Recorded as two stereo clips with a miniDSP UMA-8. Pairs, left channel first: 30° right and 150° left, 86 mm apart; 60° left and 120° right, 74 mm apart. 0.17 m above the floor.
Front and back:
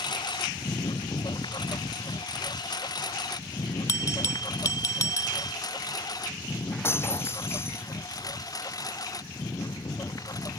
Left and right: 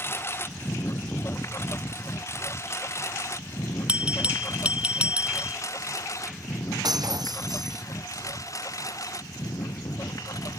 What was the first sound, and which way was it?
A lawn mower, straight ahead.